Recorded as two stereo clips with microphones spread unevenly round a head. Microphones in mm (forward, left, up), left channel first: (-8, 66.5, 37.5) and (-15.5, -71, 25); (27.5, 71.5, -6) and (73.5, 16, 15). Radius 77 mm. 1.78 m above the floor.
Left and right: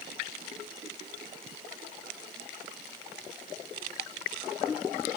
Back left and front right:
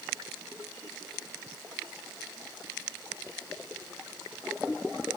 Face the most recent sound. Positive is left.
No sound to turn to.